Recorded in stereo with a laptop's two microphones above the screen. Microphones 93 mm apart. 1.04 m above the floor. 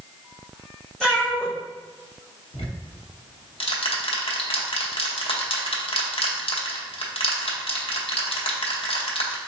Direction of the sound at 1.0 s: 5° left (ahead or behind).